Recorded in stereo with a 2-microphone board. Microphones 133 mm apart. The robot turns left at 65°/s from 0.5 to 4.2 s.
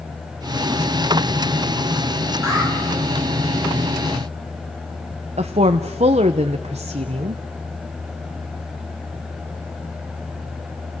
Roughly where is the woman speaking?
Right.